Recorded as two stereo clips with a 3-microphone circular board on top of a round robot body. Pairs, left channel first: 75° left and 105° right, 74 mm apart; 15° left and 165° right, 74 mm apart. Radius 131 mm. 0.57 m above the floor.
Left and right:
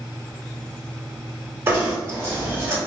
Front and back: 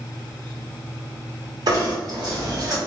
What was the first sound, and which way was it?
Knocking, 160° right.